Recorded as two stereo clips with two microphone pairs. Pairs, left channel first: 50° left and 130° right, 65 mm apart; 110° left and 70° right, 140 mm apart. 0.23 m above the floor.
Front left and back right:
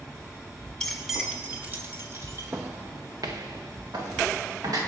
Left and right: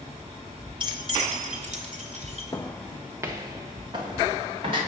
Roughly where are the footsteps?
Behind.